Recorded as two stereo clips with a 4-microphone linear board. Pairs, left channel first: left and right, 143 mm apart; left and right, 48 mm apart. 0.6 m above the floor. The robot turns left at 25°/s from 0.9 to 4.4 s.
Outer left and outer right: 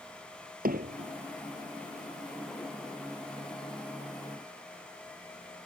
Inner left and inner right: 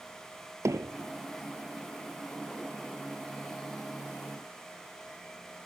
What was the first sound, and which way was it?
Hammering, 80° right.